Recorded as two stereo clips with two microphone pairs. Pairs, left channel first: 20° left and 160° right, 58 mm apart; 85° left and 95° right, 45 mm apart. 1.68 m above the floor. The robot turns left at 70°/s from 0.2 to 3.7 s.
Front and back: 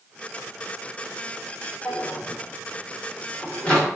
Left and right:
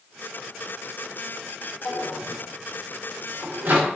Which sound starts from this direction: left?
A drawer, at 1.9 s.